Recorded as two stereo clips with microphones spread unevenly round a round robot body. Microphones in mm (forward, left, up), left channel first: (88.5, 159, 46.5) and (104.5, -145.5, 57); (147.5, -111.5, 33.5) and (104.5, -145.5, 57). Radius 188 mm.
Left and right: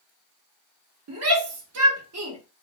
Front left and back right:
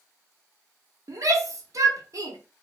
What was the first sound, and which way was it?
A shout, 105° right.